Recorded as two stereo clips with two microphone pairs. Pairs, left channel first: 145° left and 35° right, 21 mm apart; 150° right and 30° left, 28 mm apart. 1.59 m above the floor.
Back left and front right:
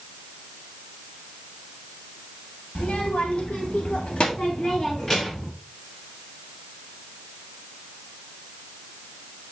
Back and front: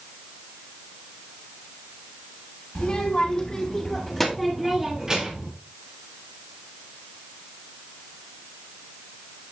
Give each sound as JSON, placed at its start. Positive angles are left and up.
{"t": 2.8, "sound": "a child speaking", "azimuth_deg": 155, "distance_m": 2.5}